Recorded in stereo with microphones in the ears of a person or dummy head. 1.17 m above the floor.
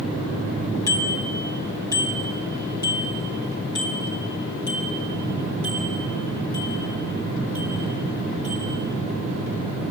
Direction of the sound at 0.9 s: 15° left (ahead or behind).